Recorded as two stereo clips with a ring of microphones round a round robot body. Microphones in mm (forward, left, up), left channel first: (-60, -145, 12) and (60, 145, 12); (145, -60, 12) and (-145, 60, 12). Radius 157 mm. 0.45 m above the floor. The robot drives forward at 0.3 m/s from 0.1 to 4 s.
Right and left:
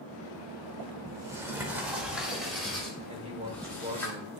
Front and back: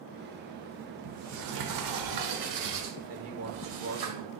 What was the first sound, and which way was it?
A sliding door, 145° left.